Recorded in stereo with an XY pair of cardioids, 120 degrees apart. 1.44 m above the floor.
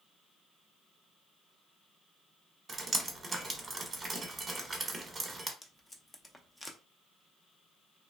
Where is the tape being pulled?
10° left, 0.5 m.